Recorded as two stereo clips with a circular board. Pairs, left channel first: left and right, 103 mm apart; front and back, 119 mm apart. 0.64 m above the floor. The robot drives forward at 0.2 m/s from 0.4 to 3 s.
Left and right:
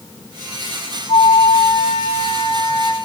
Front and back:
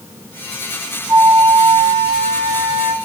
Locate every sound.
1.1 s a flute: 120° left, 1.6 m; by 3.0 s 130° left, 1.8 m